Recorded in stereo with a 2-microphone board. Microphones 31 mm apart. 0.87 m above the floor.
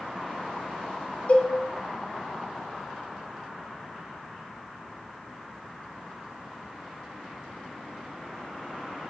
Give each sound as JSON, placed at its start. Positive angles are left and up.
{"t": 1.3, "sound": "a cowbell", "side_deg": 45, "distance_m": 1.2}